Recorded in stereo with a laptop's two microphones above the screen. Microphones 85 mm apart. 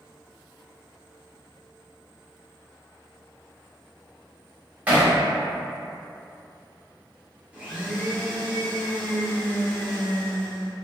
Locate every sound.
4.9 s hammering: 20° right (ahead or behind), 0.9 m
7.5 s a blender: 15° right (ahead or behind), 0.7 m